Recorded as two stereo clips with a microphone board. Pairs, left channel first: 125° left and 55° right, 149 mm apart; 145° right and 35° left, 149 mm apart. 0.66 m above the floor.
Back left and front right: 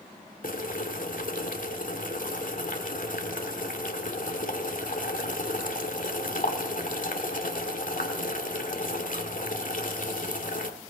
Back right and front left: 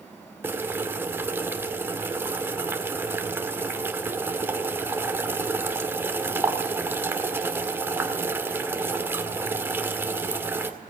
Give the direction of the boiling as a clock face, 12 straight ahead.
8 o'clock.